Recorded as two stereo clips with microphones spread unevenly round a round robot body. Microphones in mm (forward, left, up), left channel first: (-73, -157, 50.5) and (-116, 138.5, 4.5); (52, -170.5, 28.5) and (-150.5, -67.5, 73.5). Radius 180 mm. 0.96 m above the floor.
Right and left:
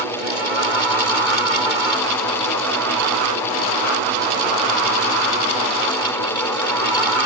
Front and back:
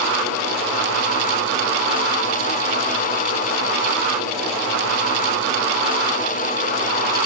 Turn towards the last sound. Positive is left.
No sound to turn to.